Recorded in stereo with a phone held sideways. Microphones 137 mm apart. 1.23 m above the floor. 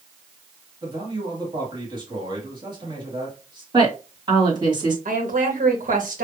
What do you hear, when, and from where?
0.8 s a man speaking: 35° right (ahead or behind), 2 m
3.7 s a woman speaking: 35° right (ahead or behind), 1.9 m
5.0 s a woman speaking: 80° right, 1.6 m